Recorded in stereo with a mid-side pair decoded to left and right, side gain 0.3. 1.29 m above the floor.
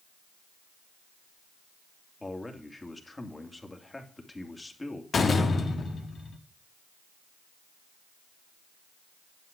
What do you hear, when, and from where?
2.2 s a man speaking: 25° left, 2.5 m
5.1 s a door slam: 65° left, 1.6 m